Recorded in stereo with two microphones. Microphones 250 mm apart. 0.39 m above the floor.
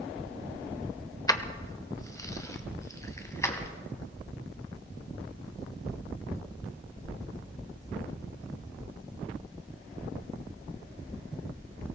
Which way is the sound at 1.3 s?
15° left (ahead or behind).